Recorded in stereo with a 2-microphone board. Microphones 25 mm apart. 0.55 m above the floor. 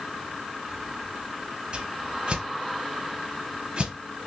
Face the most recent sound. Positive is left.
turn(degrees=-50)  # may be behind; listen again after turning